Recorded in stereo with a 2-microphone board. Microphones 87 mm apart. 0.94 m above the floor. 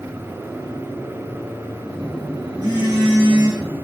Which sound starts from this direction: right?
A phone buzzing, at 1.9 s.